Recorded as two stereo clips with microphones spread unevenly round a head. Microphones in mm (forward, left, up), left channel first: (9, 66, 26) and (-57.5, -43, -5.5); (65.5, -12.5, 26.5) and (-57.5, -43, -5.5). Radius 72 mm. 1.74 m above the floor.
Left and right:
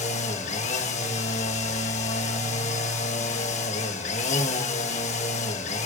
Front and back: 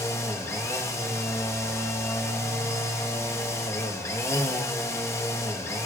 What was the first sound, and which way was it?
A machine running, 85° left.